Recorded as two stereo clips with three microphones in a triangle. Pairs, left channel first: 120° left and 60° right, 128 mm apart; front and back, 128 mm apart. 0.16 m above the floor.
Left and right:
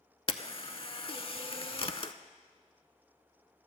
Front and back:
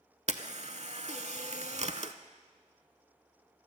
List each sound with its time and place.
0.3 s a camera shutter: 160° left, 0.5 m